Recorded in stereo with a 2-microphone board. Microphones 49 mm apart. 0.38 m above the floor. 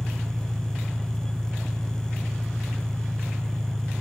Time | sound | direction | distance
0.0 | an engine running | 5° left (ahead or behind) | 1.9 m